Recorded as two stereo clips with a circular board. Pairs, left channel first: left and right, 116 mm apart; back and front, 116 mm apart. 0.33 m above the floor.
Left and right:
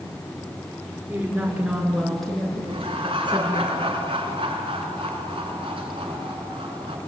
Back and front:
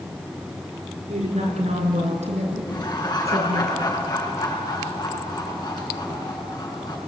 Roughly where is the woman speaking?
Ahead.